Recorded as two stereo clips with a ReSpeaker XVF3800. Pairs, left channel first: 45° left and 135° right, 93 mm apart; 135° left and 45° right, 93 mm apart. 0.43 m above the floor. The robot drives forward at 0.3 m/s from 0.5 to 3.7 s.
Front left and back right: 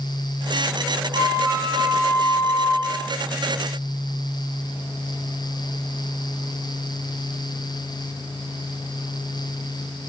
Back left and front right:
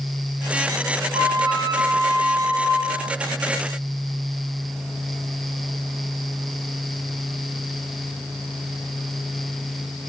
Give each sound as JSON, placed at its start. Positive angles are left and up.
{"t": 1.1, "sound": "a flute", "azimuth_deg": -80, "distance_m": 2.0}